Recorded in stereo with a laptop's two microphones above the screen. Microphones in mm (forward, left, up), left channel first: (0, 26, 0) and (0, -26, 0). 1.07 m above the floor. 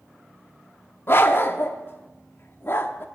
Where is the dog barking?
45° left (ahead or behind), 0.7 m.